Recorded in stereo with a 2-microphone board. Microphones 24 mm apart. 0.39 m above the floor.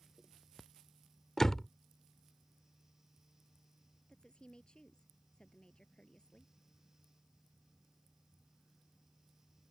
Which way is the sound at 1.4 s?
20° left (ahead or behind).